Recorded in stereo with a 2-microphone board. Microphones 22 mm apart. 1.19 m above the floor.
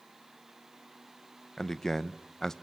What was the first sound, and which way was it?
A man speaking, 20° left (ahead or behind).